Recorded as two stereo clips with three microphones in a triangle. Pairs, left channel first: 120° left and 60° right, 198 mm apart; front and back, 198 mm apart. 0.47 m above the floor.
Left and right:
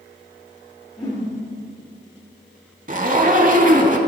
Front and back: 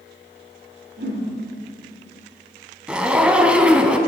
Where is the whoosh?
170° right, 2 m.